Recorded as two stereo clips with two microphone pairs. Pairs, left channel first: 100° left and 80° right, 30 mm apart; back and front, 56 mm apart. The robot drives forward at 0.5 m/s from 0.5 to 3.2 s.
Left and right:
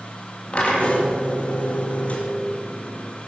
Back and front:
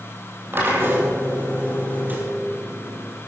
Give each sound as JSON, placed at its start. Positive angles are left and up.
{"t": 0.5, "sound": "a drill", "azimuth_deg": 50, "distance_m": 3.5}